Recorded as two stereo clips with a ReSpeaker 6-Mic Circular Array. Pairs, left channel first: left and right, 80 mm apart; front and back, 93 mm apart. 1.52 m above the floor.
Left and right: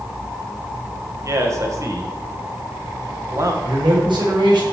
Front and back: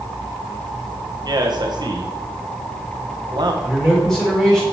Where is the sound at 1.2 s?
140° right, 1.6 m.